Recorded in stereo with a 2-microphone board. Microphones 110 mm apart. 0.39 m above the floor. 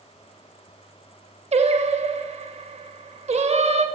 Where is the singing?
65° right (ahead or behind), 0.5 m.